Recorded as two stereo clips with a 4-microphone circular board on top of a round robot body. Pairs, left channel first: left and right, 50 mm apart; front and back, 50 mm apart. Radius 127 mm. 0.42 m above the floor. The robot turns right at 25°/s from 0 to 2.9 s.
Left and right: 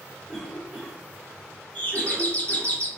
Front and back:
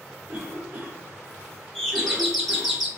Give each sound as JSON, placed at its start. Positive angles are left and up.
{"t": 0.3, "sound": "a cough", "azimuth_deg": 170, "distance_m": 1.4}
{"t": 1.8, "sound": "a doorbell", "azimuth_deg": 70, "distance_m": 1.3}